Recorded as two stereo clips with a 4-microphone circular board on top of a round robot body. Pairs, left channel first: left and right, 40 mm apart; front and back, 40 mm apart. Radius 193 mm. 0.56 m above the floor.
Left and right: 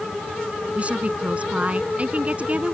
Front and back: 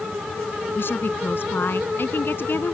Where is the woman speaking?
35° right.